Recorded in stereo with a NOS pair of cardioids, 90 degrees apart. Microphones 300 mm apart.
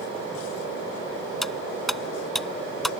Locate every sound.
1.4 s cutlery clinking: straight ahead